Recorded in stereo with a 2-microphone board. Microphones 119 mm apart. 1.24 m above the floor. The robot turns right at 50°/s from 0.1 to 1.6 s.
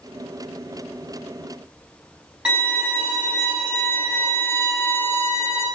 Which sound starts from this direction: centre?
A violin, at 2.5 s.